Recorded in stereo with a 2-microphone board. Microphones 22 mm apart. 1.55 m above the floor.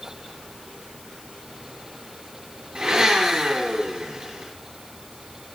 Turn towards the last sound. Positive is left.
turn(degrees=-40)  # may be behind; listen again after turning